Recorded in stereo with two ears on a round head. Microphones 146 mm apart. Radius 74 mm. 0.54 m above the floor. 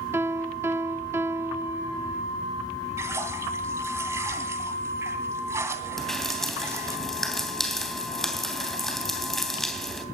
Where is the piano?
15° right (ahead or behind), 1.2 m.